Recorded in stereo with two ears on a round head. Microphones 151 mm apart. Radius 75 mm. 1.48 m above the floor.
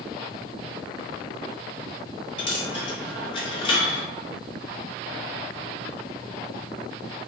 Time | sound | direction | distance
2.4 | a dropped coin | 30° left (ahead or behind) | 0.8 m